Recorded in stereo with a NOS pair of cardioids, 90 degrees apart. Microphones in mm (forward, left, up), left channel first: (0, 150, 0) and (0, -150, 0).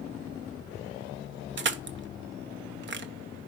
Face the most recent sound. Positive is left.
turn(degrees=-40)